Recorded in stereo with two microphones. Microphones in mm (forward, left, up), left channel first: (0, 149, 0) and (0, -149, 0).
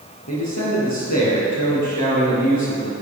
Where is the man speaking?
70° left (ahead or behind), 3.5 m.